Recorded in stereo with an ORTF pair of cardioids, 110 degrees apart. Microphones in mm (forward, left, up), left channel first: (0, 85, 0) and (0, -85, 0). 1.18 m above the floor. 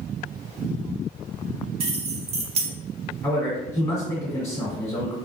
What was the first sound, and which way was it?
Keys jangling, 35° right.